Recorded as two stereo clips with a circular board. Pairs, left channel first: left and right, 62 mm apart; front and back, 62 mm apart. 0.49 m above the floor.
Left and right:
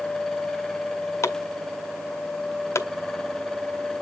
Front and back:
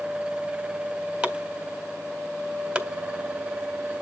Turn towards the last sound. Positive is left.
turn(degrees=115)